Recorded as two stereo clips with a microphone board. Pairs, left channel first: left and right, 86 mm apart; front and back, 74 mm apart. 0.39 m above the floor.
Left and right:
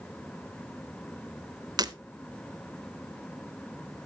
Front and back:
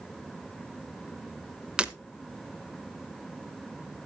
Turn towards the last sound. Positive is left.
turn(degrees=-105)